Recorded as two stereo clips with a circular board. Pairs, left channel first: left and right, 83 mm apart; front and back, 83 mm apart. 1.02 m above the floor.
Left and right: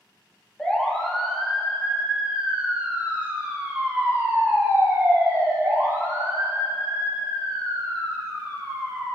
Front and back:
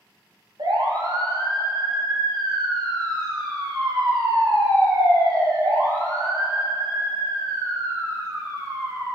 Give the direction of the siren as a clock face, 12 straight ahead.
6 o'clock.